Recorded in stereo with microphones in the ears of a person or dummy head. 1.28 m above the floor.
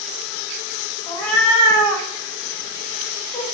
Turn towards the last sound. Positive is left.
turn(degrees=35)  # may be behind; listen again after turning